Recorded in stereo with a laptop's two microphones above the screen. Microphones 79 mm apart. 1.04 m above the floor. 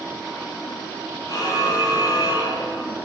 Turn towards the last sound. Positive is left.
turn(degrees=65)  # may be behind; listen again after turning